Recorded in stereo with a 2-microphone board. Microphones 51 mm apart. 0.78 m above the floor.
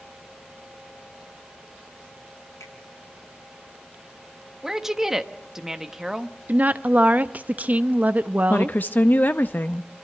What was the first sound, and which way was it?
A finger snap, 75° left (ahead or behind).